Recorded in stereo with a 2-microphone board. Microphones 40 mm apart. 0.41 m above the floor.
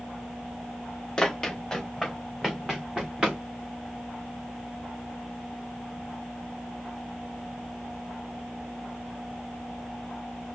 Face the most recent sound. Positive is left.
turn(degrees=-25)  # may be behind; listen again after turning